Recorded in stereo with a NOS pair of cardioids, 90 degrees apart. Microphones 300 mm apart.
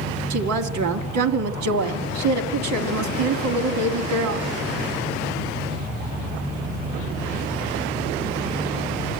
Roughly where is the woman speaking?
Right.